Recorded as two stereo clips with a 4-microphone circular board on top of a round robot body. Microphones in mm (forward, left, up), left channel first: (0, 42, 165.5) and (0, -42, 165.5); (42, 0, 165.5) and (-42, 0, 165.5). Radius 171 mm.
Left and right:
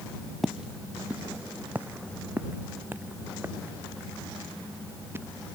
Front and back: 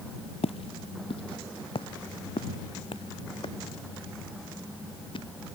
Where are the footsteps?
Straight ahead; by 5.2 s 25° right.